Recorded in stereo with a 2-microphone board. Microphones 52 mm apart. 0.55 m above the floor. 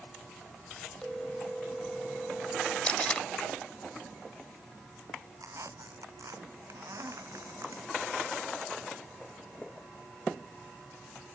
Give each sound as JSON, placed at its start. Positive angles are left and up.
{"t": 1.0, "sound": "a phone ringing", "side_deg": 10}
{"t": 2.8, "sound": "tape being pulled", "side_deg": 20}
{"t": 5.4, "sound": "a squeak", "side_deg": -85}